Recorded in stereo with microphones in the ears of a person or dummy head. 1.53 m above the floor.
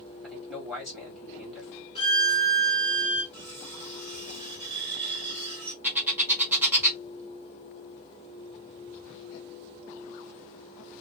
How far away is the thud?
No thud in this recording.